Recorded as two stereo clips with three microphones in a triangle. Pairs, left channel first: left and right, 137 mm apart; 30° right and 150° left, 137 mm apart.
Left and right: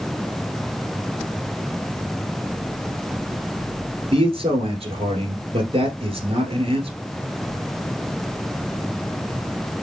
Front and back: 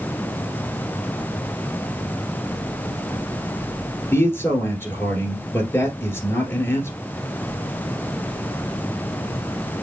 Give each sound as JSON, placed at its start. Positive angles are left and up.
{"t": 4.1, "sound": "a man speaking", "azimuth_deg": -95, "distance_m": 1.6}